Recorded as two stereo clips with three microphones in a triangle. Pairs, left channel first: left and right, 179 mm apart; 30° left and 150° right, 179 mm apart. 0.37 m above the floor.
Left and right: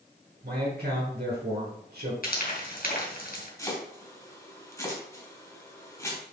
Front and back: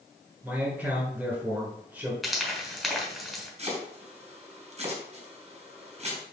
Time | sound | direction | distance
0.4 | a man speaking | 70° right | 4 m
2.2 | frying | 120° left | 3 m
3.6 | chopping | 160° left | 3 m